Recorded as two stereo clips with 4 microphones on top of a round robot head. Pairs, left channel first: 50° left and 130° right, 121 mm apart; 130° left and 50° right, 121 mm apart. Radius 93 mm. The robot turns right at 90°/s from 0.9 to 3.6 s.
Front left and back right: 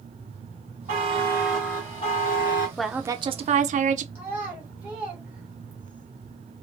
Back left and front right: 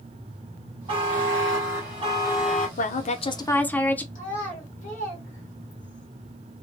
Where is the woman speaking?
135° left, 0.6 m; by 4.0 s 150° right, 0.6 m.